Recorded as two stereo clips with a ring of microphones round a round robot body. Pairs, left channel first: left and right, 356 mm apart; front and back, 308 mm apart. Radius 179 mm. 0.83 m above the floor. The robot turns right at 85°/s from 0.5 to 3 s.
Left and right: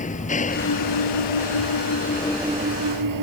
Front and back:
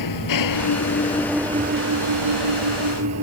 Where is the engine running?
20° left; by 3.2 s 130° right.